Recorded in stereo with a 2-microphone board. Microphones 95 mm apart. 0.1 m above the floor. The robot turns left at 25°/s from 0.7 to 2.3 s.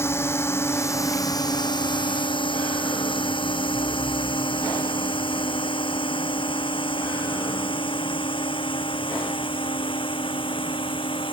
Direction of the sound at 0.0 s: 30° left (ahead or behind).